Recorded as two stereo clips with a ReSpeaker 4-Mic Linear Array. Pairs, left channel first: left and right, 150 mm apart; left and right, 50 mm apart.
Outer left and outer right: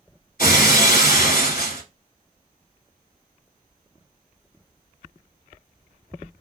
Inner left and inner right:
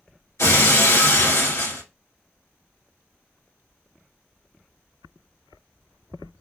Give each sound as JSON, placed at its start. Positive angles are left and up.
{"t": 0.4, "sound": "breaking glass", "side_deg": 75, "distance_m": 1.3}